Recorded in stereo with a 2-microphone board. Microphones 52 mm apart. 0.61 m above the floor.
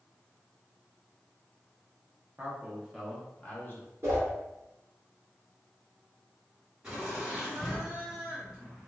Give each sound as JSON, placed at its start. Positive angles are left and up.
{"t": 2.4, "sound": "a man speaking", "side_deg": -30, "distance_m": 0.7}
{"t": 4.0, "sound": "a whoosh", "side_deg": -60, "distance_m": 1.3}
{"t": 6.8, "sound": "laughter", "side_deg": -20, "distance_m": 1.5}